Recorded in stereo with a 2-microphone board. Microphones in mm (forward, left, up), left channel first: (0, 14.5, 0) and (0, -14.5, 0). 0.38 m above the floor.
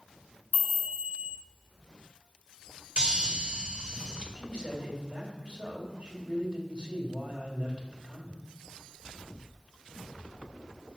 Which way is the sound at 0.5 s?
65° right (ahead or behind).